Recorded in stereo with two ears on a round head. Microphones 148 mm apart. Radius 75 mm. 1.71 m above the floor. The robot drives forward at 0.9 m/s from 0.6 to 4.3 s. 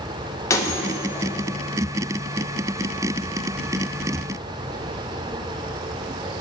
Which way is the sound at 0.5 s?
20° left (ahead or behind).